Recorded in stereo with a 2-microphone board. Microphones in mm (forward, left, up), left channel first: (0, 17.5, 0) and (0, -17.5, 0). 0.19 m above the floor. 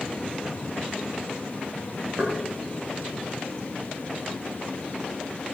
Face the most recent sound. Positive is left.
turn(degrees=-45)  # may be behind; listen again after turning